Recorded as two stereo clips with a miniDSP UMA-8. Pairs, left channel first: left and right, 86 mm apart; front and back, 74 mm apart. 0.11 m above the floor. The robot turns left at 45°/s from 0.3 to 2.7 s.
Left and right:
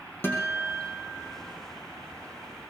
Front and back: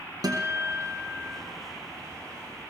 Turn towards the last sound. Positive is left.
turn(degrees=45)